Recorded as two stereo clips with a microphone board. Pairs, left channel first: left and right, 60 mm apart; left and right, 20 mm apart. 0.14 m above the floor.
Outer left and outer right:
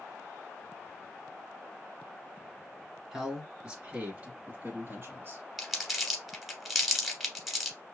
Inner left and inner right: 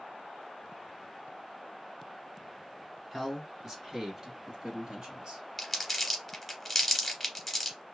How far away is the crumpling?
About 1.1 m.